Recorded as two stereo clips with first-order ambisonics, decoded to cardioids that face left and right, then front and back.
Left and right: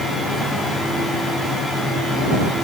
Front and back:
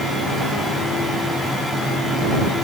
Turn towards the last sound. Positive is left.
No sound to turn to.